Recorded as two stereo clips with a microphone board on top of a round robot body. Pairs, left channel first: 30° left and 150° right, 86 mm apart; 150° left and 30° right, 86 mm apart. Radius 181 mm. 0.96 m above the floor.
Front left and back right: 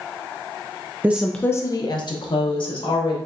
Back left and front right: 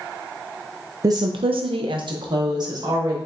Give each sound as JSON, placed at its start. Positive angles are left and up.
{"t": 1.0, "sound": "a woman speaking", "azimuth_deg": -80, "distance_m": 0.5}